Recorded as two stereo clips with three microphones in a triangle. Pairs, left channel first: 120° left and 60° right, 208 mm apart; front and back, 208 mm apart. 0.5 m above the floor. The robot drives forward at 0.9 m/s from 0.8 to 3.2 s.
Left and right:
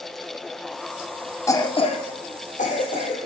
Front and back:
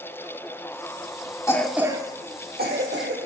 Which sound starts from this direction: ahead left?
A cough, at 1.5 s.